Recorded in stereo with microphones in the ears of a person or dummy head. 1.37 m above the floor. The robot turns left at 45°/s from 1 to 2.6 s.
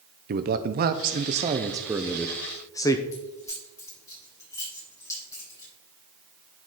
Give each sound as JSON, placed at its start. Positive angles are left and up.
{"t": 0.3, "sound": "a man speaking", "azimuth_deg": -125, "distance_m": 0.8}
{"t": 3.1, "sound": "keys jangling", "side_deg": 20, "distance_m": 5.0}